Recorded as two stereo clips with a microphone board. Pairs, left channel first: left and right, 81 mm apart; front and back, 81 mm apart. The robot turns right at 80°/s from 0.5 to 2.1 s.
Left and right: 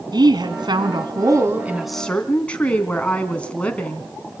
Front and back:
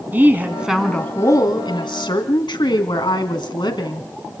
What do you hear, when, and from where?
0.1 s a woman speaking: 115° right, 3 m; by 4.1 s 15° left, 3 m